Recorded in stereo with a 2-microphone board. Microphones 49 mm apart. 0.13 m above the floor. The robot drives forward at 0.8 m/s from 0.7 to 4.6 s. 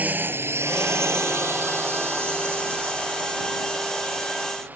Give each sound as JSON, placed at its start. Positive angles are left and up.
{"t": 0.0, "sound": "a drone", "side_deg": -35}